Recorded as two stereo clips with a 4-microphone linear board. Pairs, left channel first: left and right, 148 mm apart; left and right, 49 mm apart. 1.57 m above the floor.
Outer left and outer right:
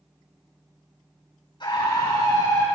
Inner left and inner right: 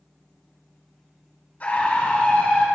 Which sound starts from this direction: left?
A scream, at 1.6 s.